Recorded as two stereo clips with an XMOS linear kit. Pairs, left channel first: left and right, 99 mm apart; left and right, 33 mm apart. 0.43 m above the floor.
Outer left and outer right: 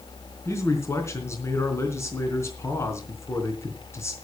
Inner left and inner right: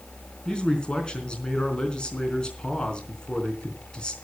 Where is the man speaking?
30° left (ahead or behind), 3.5 m.